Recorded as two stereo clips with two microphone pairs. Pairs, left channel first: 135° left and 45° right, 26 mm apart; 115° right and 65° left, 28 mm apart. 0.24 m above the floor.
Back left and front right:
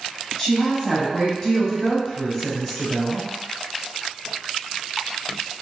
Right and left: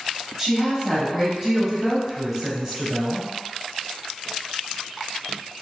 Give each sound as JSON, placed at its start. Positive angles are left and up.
{"t": 0.4, "sound": "a woman speaking", "azimuth_deg": 100, "distance_m": 1.2}